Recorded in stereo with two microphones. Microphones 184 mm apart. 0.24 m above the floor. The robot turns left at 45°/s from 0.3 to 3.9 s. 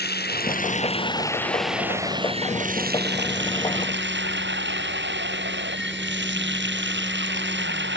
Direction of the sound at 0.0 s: 60° left.